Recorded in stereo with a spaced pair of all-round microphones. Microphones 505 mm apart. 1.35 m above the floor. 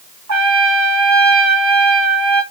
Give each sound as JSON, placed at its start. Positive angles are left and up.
{"t": 0.3, "sound": "a trumpet", "side_deg": -35, "distance_m": 0.9}